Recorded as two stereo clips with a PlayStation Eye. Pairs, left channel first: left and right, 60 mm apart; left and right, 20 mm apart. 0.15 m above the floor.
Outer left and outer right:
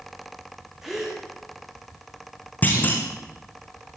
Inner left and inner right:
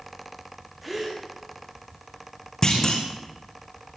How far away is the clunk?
About 5 m.